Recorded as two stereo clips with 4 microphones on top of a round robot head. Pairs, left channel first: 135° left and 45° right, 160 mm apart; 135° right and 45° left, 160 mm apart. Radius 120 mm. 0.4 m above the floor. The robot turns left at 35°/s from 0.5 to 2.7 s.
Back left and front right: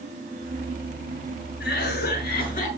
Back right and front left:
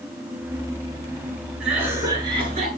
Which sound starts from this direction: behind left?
A cough, at 1.6 s.